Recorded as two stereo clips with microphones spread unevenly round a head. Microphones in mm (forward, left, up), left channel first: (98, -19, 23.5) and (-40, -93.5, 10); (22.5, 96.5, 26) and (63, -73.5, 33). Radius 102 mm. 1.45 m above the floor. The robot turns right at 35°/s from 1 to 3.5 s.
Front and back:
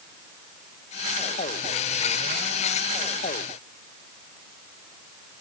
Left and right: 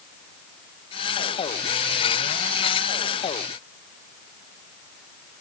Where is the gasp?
I don't hear a gasp.